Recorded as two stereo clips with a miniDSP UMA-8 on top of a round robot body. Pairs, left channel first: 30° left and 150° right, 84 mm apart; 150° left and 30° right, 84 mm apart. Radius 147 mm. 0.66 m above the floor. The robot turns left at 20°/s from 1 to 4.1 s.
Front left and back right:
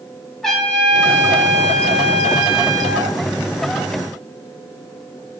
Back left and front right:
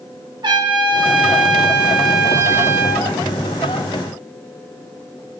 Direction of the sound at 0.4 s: 55° right.